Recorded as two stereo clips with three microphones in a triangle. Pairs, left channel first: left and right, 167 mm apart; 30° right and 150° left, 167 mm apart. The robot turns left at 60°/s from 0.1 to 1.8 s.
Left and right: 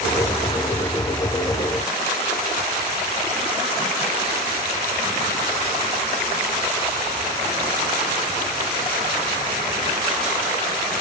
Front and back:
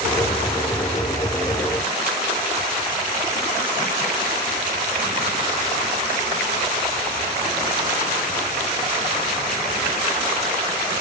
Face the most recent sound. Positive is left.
No sound to turn to.